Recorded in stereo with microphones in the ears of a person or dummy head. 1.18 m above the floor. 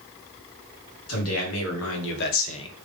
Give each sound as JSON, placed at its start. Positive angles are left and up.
{"t": 1.1, "sound": "a man speaking", "side_deg": 90, "distance_m": 2.5}